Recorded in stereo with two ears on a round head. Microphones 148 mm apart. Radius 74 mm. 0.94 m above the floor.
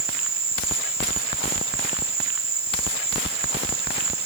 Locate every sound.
0.0 s an insect: 65° right (ahead or behind)